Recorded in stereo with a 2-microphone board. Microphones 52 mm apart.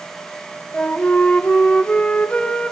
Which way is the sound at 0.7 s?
25° left (ahead or behind).